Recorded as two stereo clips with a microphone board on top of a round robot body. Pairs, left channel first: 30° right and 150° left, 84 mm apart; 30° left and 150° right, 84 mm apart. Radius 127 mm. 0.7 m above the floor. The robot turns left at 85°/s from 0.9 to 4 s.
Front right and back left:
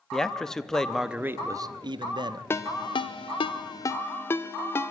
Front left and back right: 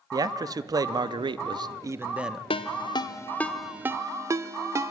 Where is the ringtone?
35° left, 0.9 m; by 4.9 s 95° right, 0.9 m.